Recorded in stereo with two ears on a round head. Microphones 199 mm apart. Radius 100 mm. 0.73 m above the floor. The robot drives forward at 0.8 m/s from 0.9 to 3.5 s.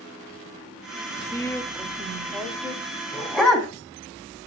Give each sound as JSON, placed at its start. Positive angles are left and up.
{"t": 1.3, "sound": "a woman speaking", "side_deg": 15, "distance_m": 0.9}
{"t": 3.1, "sound": "a dog barking", "side_deg": 5, "distance_m": 1.7}